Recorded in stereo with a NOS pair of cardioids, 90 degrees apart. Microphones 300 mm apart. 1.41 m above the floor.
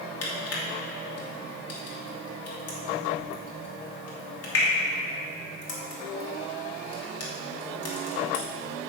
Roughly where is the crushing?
Ahead left.